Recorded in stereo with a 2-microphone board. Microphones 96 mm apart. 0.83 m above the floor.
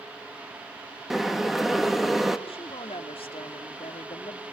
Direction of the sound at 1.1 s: 5° right (ahead or behind).